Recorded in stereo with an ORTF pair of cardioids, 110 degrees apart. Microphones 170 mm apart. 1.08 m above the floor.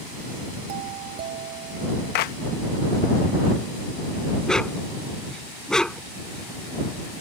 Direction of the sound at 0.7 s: 70° right.